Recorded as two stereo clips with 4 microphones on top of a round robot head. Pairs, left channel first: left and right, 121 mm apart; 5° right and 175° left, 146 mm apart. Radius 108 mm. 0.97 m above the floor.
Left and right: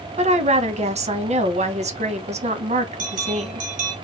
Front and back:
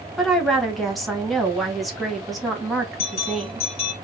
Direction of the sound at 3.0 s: 60° right.